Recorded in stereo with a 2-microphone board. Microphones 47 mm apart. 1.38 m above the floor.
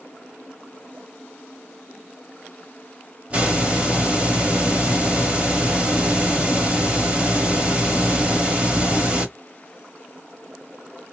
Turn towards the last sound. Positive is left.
turn(degrees=-25)  # may be behind; listen again after turning